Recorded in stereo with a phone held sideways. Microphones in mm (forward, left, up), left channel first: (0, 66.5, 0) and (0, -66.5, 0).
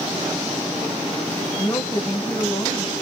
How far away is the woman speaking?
About 1.0 m.